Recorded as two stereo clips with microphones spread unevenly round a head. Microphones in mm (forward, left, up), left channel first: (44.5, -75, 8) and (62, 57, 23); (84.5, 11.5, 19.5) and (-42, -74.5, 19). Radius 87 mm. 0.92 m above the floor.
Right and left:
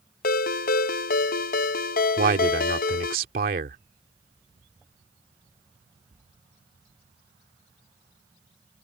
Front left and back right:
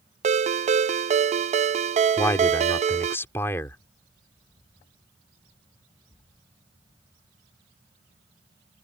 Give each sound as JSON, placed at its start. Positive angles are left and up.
{"t": 0.2, "sound": "a ringtone", "azimuth_deg": -100}
{"t": 2.2, "sound": "a man speaking", "azimuth_deg": 110}